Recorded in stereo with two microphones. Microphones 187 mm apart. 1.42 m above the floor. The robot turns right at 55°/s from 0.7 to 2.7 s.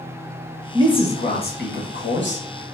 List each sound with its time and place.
0.7 s a man speaking: 20° left, 1.1 m; by 2.5 s 110° left, 1.1 m